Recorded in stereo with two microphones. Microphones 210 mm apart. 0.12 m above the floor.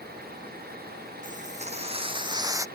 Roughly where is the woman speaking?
No woman speaking in this recording.